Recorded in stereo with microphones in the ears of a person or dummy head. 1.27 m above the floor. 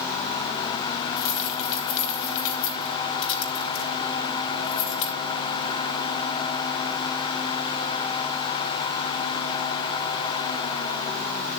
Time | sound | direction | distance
1.2 | keys jangling | 70° left (ahead or behind) | 3.5 m